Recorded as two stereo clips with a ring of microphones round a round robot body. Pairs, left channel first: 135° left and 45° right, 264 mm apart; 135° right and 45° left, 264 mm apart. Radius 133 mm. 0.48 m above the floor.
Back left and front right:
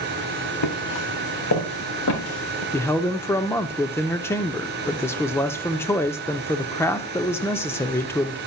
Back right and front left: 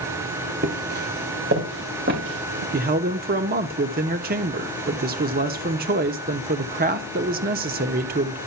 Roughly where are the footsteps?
Left.